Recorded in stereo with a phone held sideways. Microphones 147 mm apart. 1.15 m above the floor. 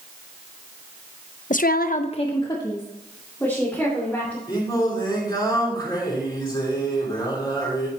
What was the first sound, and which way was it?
A woman speaking, 55° left (ahead or behind).